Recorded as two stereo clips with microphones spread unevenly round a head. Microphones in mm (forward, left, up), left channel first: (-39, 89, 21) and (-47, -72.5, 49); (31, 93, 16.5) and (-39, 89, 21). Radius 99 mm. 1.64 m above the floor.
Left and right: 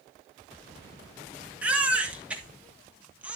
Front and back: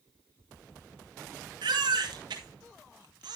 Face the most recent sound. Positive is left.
turn(degrees=-170)